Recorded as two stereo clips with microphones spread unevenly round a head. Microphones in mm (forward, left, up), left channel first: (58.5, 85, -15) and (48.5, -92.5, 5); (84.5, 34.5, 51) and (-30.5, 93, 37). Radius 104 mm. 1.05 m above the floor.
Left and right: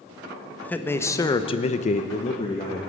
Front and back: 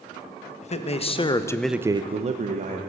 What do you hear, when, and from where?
0.6 s a man speaking: 5° left, 1.4 m; by 2.8 s 155° left, 1.3 m